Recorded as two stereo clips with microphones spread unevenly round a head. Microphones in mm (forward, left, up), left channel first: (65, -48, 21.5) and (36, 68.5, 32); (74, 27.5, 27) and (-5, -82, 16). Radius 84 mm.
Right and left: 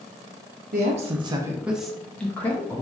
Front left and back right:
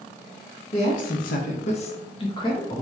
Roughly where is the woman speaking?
Left.